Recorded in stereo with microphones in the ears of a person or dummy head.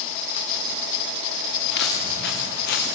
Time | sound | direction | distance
1.7 | footsteps | 70° left (ahead or behind) | 6.5 m